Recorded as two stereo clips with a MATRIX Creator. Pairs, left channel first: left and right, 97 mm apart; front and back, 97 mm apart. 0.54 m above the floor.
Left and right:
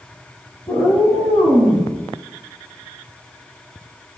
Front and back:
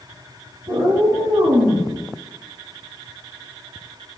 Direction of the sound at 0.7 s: 150° left.